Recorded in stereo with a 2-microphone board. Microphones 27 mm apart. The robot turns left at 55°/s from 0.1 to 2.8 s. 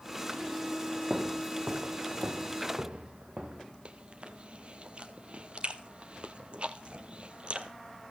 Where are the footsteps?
25° right (ahead or behind), 1.4 m; by 3.7 s 30° right (ahead or behind), 2.5 m.